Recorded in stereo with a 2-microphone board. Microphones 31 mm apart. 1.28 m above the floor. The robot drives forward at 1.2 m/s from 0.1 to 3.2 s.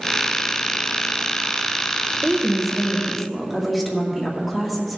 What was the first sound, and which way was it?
A woman speaking, 10° right (ahead or behind).